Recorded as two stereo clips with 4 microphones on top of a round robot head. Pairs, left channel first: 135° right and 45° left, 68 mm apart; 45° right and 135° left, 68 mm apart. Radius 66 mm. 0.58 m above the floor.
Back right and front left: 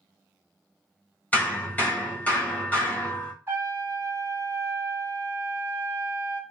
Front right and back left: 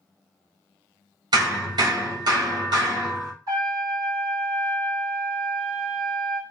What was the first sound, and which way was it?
Hammering, 160° left.